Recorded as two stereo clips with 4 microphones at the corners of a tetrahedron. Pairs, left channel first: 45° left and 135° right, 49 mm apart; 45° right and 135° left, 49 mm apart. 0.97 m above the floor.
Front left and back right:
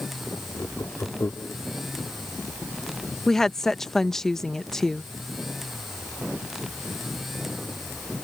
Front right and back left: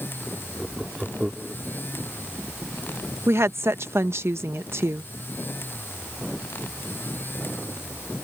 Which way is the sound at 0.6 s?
55° left.